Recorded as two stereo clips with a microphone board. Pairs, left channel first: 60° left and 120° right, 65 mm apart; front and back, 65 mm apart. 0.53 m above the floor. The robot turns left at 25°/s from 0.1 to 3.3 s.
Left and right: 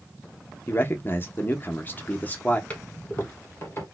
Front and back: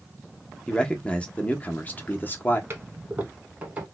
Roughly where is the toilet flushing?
Behind left.